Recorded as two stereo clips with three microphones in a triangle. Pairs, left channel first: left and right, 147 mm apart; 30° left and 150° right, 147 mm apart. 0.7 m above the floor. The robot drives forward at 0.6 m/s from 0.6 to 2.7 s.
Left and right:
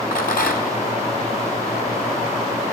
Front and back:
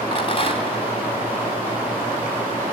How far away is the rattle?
About 2.5 m.